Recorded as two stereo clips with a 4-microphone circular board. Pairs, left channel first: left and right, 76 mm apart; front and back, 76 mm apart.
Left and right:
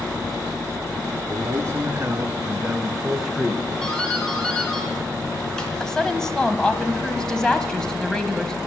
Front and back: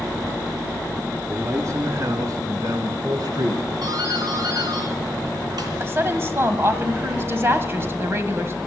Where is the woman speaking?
165° left, 1.4 m.